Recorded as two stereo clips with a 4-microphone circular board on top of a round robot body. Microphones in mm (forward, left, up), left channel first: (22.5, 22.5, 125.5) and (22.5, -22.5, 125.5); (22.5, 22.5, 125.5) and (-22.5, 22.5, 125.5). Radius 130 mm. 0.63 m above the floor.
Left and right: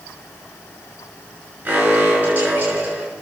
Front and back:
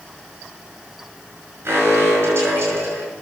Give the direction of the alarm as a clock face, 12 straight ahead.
5 o'clock.